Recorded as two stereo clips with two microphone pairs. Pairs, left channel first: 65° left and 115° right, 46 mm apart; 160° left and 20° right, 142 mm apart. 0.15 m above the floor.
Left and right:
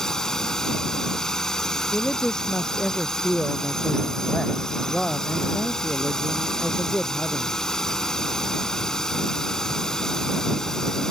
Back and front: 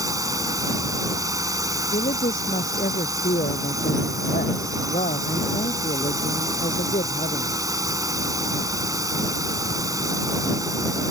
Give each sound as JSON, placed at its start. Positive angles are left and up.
{"t": 0.0, "sound": "a drone", "azimuth_deg": 5}
{"t": 1.9, "sound": "a man speaking", "azimuth_deg": 140}